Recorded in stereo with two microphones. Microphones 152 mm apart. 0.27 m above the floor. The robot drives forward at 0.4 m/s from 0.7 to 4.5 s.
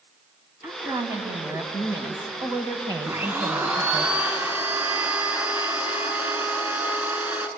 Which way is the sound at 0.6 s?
15° right (ahead or behind).